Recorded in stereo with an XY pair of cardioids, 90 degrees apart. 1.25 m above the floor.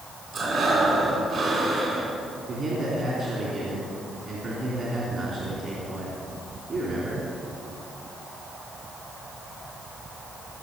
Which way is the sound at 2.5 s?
55° right.